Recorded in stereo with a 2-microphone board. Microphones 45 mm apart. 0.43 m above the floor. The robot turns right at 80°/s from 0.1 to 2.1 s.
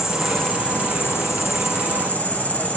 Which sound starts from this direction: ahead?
An insect, at 0.0 s.